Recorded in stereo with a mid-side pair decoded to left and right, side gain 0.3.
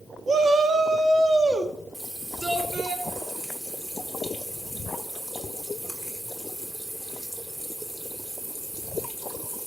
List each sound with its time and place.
0.3 s a shout: 55° right, 1.4 m; by 2.9 s 50° right, 5 m
1.9 s a running tap: 25° right, 2.5 m